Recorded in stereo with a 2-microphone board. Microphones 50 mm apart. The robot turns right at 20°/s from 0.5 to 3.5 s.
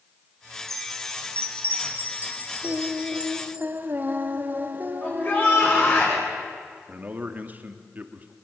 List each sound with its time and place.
0.7 s a chime: 65° right, 3 m; by 3.6 s 10° right, 3 m
2.6 s singing: 20° right (ahead or behind), 1.7 m; by 6.0 s 40° right (ahead or behind), 1.7 m
5.0 s a shout: 35° left (ahead or behind), 6 m
6.9 s a man speaking: 30° right (ahead or behind), 2 m